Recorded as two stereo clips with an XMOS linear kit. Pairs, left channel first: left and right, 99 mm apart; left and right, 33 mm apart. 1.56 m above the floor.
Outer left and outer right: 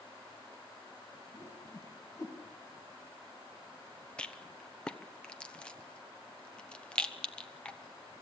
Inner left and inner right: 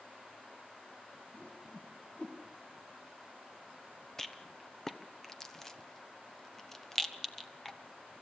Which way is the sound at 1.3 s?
35° left (ahead or behind).